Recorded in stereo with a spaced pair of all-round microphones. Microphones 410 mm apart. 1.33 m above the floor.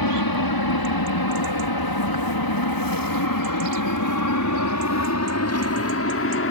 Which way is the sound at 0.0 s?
60° left (ahead or behind).